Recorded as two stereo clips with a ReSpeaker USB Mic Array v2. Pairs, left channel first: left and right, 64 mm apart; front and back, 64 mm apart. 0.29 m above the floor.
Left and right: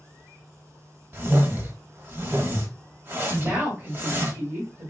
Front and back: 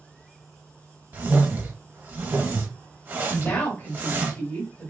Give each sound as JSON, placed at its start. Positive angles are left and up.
{"t": 1.1, "sound": "a whoosh", "azimuth_deg": -130, "distance_m": 0.7}
{"t": 3.3, "sound": "a woman speaking", "azimuth_deg": -50, "distance_m": 1.9}